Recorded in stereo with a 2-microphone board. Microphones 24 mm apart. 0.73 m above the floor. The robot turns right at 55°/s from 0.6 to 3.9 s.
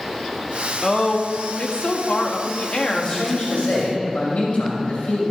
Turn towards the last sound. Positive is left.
turn(degrees=75)